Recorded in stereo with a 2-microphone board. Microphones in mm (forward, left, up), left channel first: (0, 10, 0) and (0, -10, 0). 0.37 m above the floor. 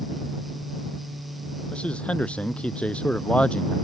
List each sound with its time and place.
1.7 s a man speaking: 70° left (ahead or behind)